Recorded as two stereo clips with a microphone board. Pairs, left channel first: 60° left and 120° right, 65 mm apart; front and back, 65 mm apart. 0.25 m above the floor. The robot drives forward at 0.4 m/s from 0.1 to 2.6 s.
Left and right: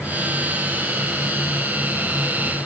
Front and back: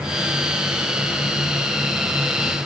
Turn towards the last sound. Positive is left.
No sound to turn to.